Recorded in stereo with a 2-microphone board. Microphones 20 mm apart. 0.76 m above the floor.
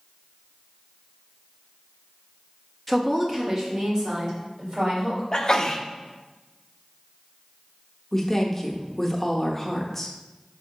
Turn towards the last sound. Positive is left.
turn(degrees=20)  # may be behind; listen again after turning